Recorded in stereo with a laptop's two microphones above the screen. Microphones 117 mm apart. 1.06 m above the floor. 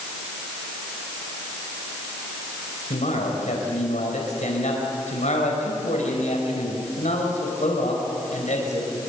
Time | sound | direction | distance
2.9 | a man speaking | 90° left | 4.5 m